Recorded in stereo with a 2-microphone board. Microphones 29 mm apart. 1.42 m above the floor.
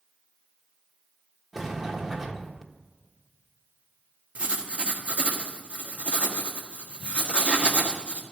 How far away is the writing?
About 1.6 m.